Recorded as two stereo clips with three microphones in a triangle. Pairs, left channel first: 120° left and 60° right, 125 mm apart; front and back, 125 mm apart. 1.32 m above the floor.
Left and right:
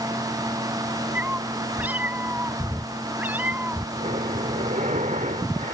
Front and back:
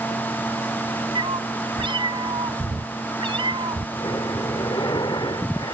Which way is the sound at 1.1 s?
135° right.